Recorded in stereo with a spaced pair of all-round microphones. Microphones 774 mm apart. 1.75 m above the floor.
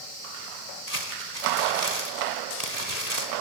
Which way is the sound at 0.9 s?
50° right (ahead or behind).